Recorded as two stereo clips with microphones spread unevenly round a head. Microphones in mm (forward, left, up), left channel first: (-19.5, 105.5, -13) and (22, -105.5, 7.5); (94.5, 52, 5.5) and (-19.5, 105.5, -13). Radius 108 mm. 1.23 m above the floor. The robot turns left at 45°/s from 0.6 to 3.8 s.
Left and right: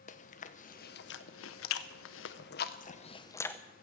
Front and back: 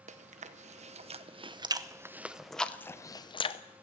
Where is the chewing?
155° left, 0.8 m; by 3.6 s 20° left, 0.8 m.